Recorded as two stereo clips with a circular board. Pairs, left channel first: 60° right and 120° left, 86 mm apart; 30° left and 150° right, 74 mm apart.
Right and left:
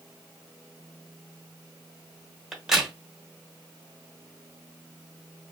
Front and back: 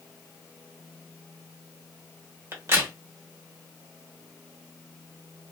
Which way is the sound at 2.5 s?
160° right.